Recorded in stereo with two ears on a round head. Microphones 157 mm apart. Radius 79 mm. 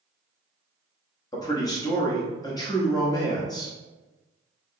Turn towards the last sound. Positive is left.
turn(degrees=20)  # may be behind; listen again after turning